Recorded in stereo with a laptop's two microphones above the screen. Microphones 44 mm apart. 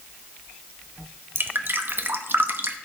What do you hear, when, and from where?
1.4 s dripping: 50° right (ahead or behind), 0.8 m